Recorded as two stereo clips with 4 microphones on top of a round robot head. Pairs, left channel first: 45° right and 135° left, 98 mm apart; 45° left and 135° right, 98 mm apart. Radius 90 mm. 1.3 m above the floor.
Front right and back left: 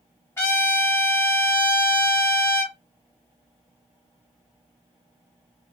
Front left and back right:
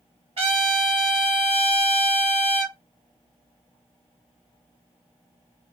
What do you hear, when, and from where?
0.4 s a trumpet: 115° right, 0.9 m